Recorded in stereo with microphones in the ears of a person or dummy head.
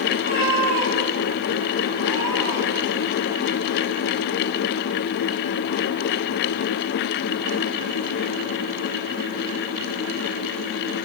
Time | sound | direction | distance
0.1 | a cat meowing | 40° right (ahead or behind) | 2.5 m